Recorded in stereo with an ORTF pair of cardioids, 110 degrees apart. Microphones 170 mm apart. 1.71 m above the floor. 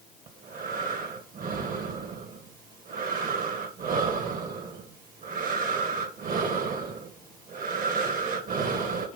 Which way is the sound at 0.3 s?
55° right.